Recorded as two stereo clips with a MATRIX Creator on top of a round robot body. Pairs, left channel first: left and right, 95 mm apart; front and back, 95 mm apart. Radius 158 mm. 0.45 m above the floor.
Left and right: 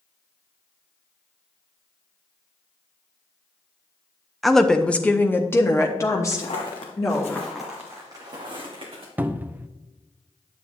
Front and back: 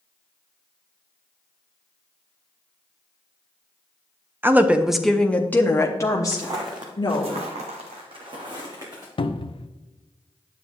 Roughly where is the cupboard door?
Ahead.